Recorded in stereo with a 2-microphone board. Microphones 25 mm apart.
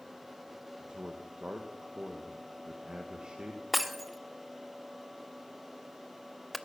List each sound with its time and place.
0.8 s a man speaking: 40° right (ahead or behind), 1.4 m
3.7 s breaking glass: centre (ahead or behind), 0.7 m